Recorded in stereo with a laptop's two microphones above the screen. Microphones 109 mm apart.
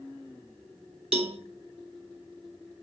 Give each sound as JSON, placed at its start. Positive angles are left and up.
{"t": 1.1, "sound": "a cowbell", "side_deg": -65, "distance_m": 2.5}